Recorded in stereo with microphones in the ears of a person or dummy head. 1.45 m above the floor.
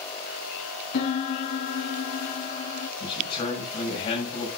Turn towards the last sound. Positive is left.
turn(degrees=30)  # may be behind; listen again after turning